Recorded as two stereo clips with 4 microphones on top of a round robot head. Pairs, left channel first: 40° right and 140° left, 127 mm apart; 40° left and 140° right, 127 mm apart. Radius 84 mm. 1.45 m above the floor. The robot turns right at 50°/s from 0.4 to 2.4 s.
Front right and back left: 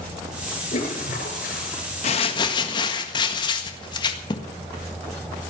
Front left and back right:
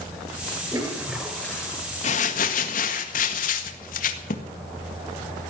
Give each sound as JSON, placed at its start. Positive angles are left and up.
{"t": 0.7, "sound": "a toilet flushing", "azimuth_deg": -80, "distance_m": 5.5}
{"t": 2.0, "sound": "crumpling", "azimuth_deg": 0, "distance_m": 1.7}